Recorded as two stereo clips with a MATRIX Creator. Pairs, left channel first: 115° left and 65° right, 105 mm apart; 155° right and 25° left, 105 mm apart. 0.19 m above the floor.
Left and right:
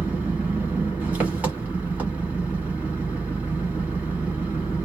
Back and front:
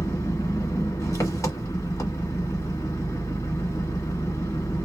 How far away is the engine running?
About 1.2 m.